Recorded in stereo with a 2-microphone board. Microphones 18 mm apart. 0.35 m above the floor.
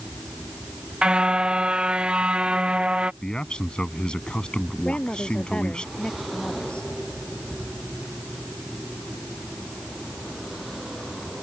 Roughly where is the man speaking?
Left.